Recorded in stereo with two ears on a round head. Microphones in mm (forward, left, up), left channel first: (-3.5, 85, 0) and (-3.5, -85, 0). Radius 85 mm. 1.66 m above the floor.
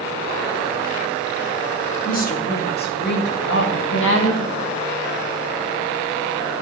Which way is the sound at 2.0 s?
50° left (ahead or behind).